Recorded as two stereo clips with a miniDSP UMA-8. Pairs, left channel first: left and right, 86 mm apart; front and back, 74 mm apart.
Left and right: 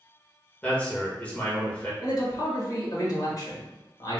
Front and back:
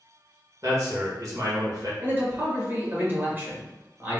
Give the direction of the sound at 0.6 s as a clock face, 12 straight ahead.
7 o'clock.